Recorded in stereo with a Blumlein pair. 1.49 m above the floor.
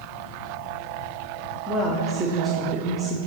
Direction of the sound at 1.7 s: 10° right.